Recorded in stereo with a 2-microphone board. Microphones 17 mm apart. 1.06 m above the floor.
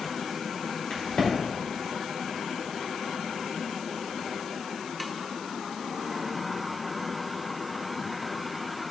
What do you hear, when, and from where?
0.9 s a crack: 85° left, 2.5 m